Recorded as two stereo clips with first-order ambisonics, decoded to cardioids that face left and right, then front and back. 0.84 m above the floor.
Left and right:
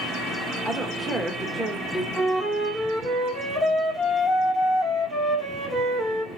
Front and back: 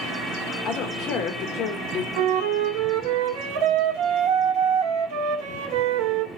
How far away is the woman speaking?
About 0.7 m.